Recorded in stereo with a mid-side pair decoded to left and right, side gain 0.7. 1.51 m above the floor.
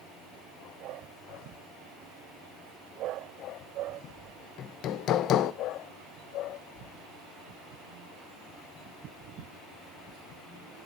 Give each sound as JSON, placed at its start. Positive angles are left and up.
{"t": 4.6, "sound": "hammering", "azimuth_deg": 50, "distance_m": 1.1}